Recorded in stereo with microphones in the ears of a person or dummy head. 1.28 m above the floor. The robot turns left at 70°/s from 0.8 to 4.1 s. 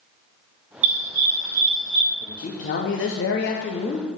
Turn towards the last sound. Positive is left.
turn(degrees=25)